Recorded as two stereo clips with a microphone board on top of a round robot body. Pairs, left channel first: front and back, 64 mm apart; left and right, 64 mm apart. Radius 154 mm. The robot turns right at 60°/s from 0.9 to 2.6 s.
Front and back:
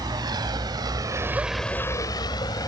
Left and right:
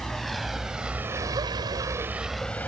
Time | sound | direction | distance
0.0 | a vehicle | 175° left | ?